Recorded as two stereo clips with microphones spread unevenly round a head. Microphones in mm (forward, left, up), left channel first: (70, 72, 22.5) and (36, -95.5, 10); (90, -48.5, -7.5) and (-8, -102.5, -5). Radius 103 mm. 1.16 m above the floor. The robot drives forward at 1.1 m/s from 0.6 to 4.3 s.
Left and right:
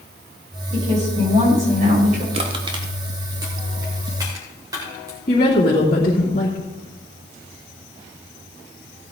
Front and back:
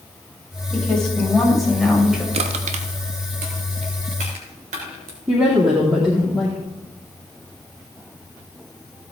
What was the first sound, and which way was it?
A woman speaking, 55° right.